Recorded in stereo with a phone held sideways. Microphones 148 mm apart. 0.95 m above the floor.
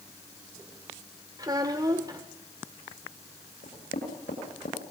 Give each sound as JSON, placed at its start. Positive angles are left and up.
{"t": 1.4, "sound": "a child speaking", "side_deg": -25, "distance_m": 1.5}
{"t": 3.6, "sound": "knocking", "side_deg": 85, "distance_m": 8.5}